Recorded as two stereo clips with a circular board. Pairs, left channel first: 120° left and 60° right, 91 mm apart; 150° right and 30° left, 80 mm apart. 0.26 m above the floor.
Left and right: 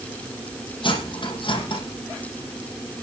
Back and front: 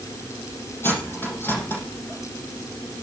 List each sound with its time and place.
0.8 s cutlery clinking: 145° left, 6.5 m